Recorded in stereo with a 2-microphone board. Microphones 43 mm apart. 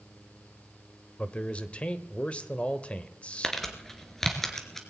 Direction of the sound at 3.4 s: 10° left (ahead or behind).